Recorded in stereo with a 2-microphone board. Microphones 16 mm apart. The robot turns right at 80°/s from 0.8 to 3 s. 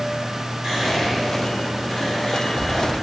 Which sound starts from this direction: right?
Whispering, at 0.6 s.